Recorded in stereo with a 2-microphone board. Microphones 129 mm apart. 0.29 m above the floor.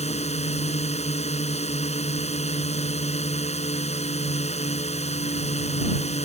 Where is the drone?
60° left (ahead or behind).